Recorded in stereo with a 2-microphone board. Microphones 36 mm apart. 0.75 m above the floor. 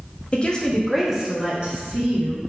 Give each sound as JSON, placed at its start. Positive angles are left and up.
{"t": 0.3, "sound": "a woman speaking", "side_deg": 40, "distance_m": 0.7}